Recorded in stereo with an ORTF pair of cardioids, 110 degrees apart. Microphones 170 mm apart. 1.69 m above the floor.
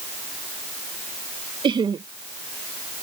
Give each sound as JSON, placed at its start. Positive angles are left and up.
{"t": 1.6, "sound": "laughter", "azimuth_deg": -30}